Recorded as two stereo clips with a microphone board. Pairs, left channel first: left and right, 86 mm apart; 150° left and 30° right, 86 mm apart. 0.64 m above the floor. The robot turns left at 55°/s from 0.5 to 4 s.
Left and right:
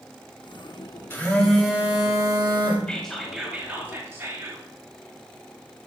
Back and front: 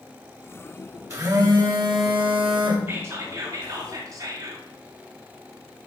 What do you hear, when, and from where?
1.1 s a phone buzzing: 25° left, 1.6 m; by 2.8 s 65° right, 1.6 m
2.9 s whispering: 20° left, 1.4 m; by 4.7 s 40° right, 1.4 m